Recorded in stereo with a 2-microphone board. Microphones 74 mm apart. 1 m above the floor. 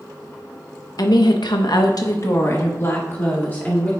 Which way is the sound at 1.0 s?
60° left (ahead or behind).